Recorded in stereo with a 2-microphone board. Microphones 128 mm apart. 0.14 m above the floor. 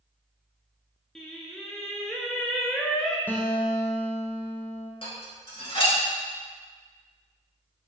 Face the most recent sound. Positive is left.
turn(degrees=45)  # may be behind; listen again after turning